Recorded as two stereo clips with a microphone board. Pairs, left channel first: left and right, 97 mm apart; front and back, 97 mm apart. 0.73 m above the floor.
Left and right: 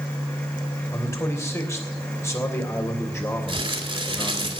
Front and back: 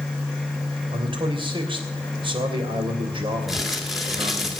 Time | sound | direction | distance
0.9 | a man speaking | 150° left | 3 m
3.5 | crumpling | 90° right | 2.0 m